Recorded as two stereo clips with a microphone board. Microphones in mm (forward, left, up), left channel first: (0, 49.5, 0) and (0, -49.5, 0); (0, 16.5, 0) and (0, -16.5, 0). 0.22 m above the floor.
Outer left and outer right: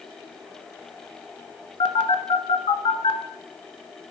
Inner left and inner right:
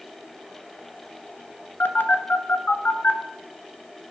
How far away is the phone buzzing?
About 0.8 m.